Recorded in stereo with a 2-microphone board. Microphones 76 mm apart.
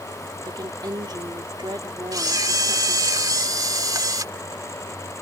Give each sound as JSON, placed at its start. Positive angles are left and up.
{"t": 0.5, "sound": "a woman speaking", "side_deg": -70}
{"t": 2.1, "sound": "a camera shutter", "side_deg": -55}